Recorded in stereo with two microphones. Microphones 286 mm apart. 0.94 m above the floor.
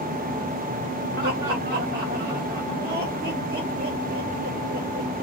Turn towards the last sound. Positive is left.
turn(degrees=-35)  # may be behind; listen again after turning